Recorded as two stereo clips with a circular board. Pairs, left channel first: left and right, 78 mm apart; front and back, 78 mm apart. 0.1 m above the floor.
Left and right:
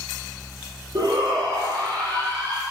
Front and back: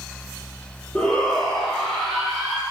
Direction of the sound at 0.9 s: 75° right.